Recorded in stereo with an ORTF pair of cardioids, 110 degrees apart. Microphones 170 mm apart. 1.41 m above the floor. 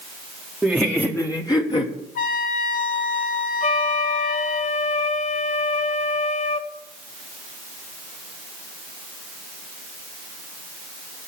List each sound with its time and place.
0.6 s laughter: straight ahead, 1.1 m; by 2.0 s 35° left, 1.4 m
2.1 s a trumpet: 55° left, 1.7 m
3.6 s a flute: 45° left, 1.2 m